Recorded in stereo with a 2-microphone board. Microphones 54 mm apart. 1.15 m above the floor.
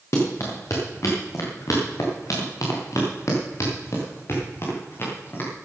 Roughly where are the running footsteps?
Left.